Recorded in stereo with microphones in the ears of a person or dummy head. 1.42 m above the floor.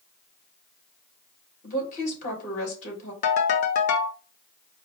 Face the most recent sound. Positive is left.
turn(degrees=55)  # may be behind; listen again after turning